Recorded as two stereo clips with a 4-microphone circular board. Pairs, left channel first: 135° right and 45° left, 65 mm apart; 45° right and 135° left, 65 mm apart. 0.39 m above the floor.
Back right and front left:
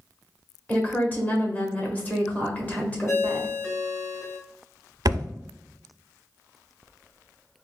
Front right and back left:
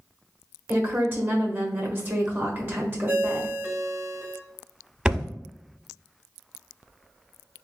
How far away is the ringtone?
About 1.4 m.